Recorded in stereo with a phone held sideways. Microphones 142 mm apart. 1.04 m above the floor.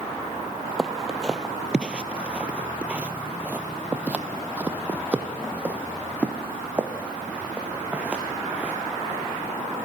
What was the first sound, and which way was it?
Footsteps, 5° right (ahead or behind).